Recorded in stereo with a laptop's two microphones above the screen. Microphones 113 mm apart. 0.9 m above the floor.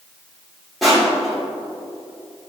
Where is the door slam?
I don't hear a door slam.